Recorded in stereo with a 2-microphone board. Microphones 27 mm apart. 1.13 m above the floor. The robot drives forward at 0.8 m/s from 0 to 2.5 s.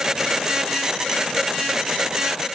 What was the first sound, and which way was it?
Only background noise.